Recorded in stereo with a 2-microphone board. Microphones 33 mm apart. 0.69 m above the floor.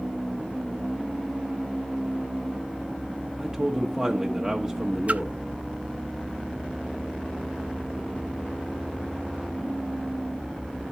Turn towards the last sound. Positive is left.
turn(degrees=-45)  # may be behind; listen again after turning